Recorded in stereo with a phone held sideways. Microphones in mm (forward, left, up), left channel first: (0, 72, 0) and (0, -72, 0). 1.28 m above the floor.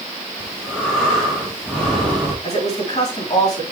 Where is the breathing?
5° left (ahead or behind), 3.5 m.